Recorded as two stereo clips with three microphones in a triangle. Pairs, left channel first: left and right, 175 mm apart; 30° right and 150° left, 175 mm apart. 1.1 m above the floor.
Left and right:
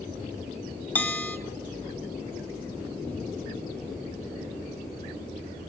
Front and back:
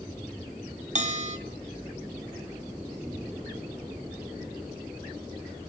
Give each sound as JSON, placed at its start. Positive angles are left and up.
{"t": 0.9, "sound": "a bell", "azimuth_deg": 165, "distance_m": 0.8}